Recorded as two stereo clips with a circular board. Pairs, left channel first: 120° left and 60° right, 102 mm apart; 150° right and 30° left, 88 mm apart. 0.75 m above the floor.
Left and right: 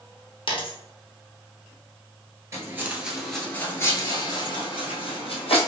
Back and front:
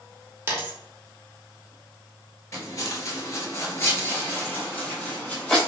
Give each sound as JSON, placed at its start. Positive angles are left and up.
{"t": 0.5, "sound": "a dropped coin", "azimuth_deg": 90, "distance_m": 0.7}
{"t": 2.5, "sound": "footsteps", "azimuth_deg": -110, "distance_m": 0.9}